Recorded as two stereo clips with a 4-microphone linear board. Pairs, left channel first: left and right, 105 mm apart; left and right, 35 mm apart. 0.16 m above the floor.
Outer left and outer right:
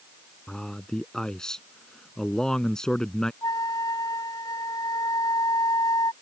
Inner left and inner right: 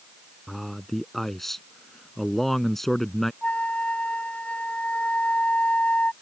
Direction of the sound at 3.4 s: 40° left (ahead or behind).